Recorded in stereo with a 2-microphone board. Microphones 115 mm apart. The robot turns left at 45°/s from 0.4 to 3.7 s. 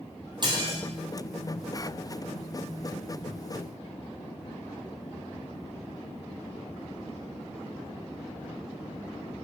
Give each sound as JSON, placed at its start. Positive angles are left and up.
{"t": 0.4, "sound": "dishes clattering", "side_deg": -40, "distance_m": 2.5}